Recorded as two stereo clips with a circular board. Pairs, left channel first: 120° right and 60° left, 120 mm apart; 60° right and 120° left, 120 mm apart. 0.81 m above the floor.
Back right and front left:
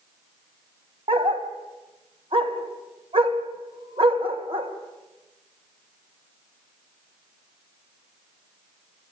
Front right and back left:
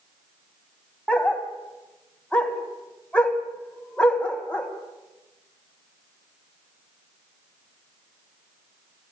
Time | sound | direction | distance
1.1 | a dog barking | 20° left | 2 m